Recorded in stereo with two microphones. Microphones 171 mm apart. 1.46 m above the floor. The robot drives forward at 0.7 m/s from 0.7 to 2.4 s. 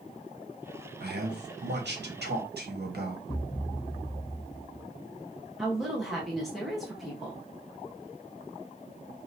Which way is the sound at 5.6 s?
Centre (ahead or behind).